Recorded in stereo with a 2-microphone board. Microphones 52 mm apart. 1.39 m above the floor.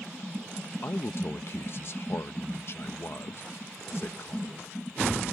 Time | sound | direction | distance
0.8 | a man speaking | 50° left (ahead or behind) | ?